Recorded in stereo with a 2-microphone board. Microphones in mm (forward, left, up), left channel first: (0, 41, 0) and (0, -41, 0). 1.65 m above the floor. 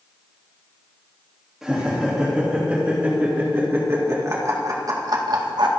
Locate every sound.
1.6 s laughter: 5° right (ahead or behind), 3 m; by 5.7 s 60° right (ahead or behind), 1.8 m